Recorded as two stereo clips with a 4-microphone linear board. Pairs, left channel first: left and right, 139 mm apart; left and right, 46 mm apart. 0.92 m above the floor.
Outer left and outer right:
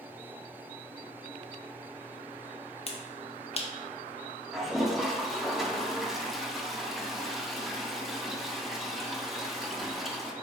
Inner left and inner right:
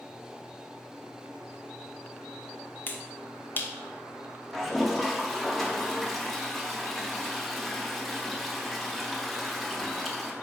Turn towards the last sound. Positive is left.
turn(degrees=0)  # may be behind; listen again after turning